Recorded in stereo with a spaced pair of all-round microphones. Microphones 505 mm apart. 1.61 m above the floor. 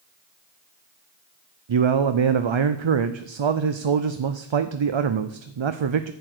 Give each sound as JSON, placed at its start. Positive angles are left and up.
{"t": 1.7, "sound": "a man speaking", "side_deg": -65, "distance_m": 0.5}